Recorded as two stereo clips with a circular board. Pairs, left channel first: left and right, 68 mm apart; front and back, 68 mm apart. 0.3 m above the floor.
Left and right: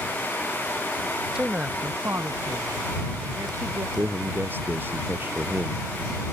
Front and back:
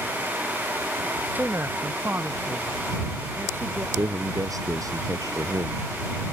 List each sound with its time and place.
1.4 s a woman speaking: 160° right; by 3.9 s 125° right
4.0 s a man speaking: 150° right